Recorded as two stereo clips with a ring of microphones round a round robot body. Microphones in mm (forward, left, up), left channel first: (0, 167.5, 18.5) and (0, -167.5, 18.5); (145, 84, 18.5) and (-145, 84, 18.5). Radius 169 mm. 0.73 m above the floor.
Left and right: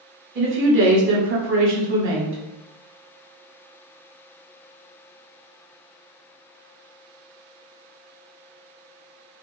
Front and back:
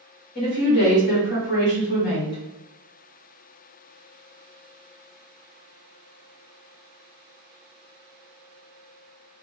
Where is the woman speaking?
45° right, 1.0 m.